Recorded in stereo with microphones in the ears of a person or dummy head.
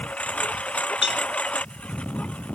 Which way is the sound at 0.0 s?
5° left (ahead or behind).